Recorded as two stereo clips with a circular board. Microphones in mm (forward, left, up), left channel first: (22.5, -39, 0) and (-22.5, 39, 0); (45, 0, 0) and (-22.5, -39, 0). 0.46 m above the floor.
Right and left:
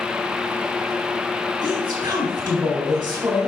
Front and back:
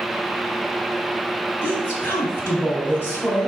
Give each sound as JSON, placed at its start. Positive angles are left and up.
{"t": 1.6, "sound": "a woman speaking", "azimuth_deg": 90, "distance_m": 3.5}